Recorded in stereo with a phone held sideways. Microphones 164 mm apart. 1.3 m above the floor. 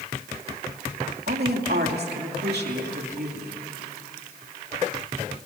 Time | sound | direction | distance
1.3 | a woman speaking | 75° right (ahead or behind) | 2.5 m